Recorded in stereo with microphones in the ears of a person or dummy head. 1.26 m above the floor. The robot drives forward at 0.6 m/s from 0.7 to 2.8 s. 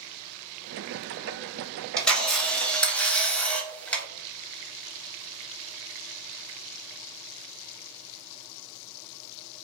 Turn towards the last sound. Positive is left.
turn(degrees=5)  # may be behind; listen again after turning